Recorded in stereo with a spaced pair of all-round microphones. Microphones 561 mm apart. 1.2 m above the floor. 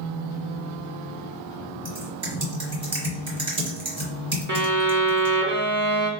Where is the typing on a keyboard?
50° right (ahead or behind), 1.6 m.